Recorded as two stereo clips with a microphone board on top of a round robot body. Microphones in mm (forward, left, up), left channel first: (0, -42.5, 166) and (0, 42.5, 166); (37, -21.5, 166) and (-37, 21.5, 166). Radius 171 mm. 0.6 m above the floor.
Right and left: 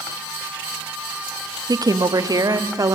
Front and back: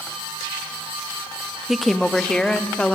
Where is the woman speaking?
60° left, 1.4 m; by 3.0 s 45° left, 2.0 m.